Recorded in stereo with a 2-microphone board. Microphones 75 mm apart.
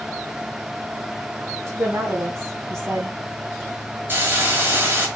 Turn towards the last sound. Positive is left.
turn(degrees=-30)  # may be behind; listen again after turning